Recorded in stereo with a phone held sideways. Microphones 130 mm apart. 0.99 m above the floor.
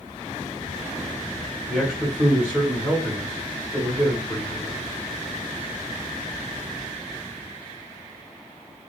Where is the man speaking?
10° right (ahead or behind), 1.3 m.